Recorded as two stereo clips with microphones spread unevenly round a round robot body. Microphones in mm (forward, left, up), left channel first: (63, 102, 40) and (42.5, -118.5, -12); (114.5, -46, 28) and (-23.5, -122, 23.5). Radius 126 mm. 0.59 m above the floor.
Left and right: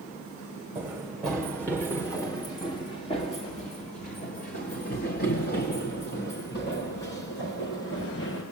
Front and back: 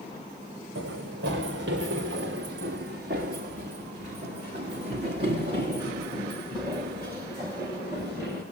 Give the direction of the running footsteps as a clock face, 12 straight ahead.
6 o'clock.